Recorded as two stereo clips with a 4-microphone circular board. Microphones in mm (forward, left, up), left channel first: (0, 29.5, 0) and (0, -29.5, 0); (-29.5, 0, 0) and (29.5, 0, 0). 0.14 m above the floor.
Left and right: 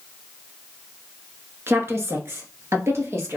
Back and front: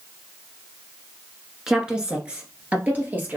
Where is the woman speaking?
75° right, 1.4 m; by 3.4 s 55° right, 2.5 m.